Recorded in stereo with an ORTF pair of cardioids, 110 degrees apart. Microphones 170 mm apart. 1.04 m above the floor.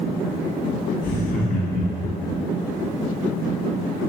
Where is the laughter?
70° left, 1.9 m; by 2.4 s 75° left, 1.0 m.